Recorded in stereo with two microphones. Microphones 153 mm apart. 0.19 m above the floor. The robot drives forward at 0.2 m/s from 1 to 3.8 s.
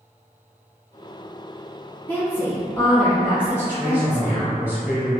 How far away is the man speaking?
About 1.1 m.